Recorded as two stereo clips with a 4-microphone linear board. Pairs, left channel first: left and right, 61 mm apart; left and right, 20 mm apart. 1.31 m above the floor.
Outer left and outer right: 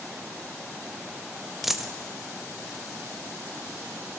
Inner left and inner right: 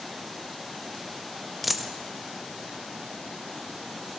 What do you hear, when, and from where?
1.6 s a dropped coin: 5° right (ahead or behind), 0.6 m